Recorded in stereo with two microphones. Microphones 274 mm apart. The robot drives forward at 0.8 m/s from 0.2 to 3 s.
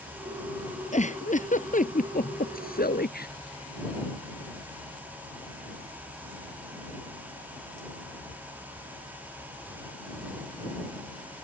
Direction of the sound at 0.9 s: 25° left (ahead or behind).